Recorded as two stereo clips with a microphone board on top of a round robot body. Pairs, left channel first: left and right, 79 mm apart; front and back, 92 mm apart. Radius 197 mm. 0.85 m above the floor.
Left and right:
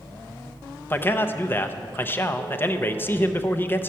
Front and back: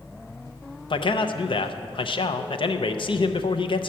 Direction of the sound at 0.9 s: 25° left.